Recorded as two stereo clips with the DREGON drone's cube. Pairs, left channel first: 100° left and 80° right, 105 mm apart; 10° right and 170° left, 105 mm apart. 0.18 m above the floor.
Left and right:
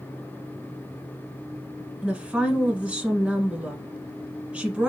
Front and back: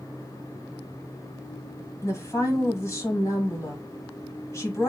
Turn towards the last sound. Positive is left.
turn(degrees=-15)